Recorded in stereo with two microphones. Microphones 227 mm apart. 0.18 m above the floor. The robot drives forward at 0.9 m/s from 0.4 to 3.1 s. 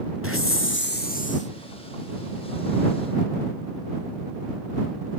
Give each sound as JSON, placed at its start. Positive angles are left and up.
{"t": 0.2, "sound": "a hiss", "side_deg": 65, "distance_m": 0.7}